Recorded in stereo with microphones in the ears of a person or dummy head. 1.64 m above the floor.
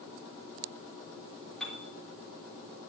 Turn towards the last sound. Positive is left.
turn(degrees=0)  # may be behind; listen again after turning